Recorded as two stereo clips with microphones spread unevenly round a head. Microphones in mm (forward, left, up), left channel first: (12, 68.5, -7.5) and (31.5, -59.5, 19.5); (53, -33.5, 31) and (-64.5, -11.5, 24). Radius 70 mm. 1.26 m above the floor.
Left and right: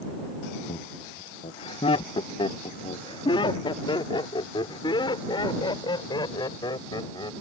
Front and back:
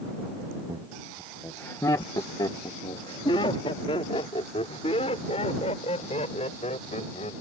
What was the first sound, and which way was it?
Laughter, 125° left.